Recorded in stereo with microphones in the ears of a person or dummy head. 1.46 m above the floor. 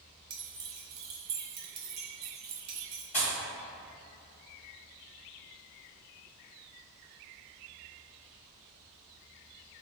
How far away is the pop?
About 1.5 m.